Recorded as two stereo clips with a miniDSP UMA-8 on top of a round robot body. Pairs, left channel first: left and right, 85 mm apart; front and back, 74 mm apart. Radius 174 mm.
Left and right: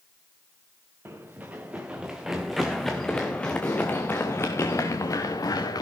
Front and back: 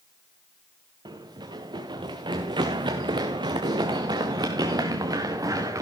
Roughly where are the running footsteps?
Behind right.